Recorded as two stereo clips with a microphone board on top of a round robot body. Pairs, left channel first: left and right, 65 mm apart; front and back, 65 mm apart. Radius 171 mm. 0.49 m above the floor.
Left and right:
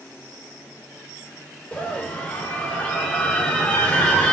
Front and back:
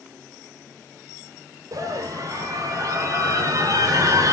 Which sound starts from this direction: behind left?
A scream, at 1.7 s.